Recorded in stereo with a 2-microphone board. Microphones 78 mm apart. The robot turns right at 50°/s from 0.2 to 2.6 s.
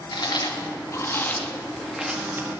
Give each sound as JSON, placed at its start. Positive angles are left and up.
{"t": 0.1, "sound": "chewing", "side_deg": 65, "distance_m": 1.5}